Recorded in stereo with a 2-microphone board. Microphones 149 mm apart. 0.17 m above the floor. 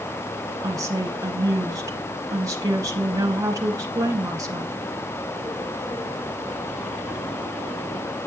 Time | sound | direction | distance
0.6 | a woman speaking | 25° right (ahead or behind) | 1.7 m